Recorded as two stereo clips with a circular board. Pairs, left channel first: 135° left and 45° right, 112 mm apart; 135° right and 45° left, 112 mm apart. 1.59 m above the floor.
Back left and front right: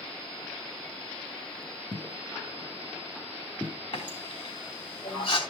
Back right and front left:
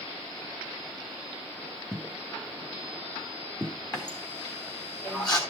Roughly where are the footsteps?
Behind.